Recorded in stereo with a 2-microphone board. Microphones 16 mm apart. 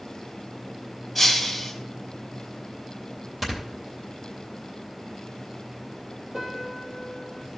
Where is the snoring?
15° right (ahead or behind), 3 m.